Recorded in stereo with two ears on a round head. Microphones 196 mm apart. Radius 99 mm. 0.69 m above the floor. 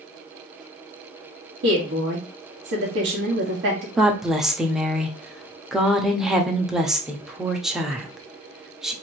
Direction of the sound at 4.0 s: Centre (ahead or behind).